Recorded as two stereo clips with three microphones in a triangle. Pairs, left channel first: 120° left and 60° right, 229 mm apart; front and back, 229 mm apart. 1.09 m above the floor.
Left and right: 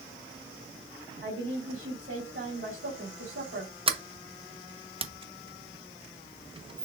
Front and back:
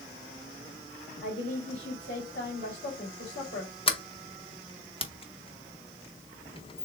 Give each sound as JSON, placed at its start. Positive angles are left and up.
{"t": 1.2, "sound": "a woman speaking", "azimuth_deg": -35, "distance_m": 3.0}
{"t": 3.9, "sound": "a sliding door", "azimuth_deg": -30, "distance_m": 0.7}